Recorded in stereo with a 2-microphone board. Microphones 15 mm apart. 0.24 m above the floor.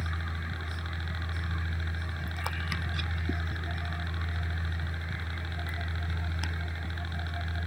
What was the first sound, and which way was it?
A helicopter, 5° right (ahead or behind).